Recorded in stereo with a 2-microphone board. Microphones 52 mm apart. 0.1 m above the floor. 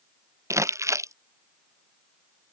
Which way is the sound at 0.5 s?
70° right (ahead or behind).